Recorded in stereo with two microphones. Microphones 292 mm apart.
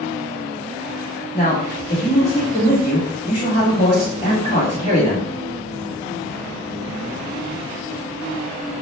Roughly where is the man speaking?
Centre.